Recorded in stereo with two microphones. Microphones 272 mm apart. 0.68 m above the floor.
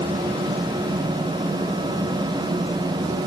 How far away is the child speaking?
I don't hear a child speaking.